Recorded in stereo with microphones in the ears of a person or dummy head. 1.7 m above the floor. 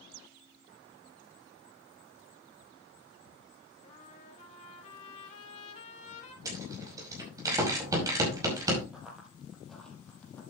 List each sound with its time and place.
3.8 s a trumpet: 45° left (ahead or behind), 4 m
6.5 s a rattle: 20° right (ahead or behind), 5 m
8.9 s running footsteps: 5° right (ahead or behind), 3.5 m; by 10.4 s 15° left (ahead or behind), 3.5 m